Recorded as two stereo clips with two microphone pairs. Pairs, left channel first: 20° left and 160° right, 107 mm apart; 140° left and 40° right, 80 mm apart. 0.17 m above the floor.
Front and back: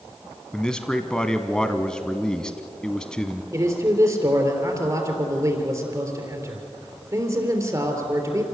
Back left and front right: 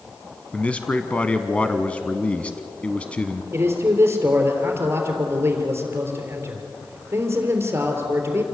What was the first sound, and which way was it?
A man speaking, 95° left.